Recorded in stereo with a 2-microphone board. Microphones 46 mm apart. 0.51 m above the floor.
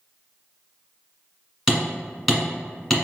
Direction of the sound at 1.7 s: Centre (ahead or behind).